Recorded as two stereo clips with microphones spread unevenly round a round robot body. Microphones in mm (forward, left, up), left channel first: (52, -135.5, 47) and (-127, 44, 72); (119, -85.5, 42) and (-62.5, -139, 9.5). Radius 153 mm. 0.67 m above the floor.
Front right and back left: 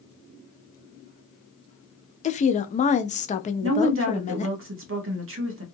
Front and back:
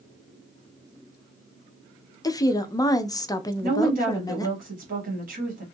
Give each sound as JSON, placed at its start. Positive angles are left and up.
{"t": 2.2, "sound": "a woman speaking", "azimuth_deg": -55, "distance_m": 0.5}
{"t": 3.6, "sound": "a woman speaking", "azimuth_deg": 170, "distance_m": 1.2}